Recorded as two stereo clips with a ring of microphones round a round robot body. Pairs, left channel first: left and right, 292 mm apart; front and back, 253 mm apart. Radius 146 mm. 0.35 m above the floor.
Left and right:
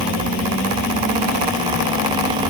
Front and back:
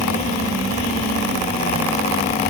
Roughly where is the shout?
No shout in this recording.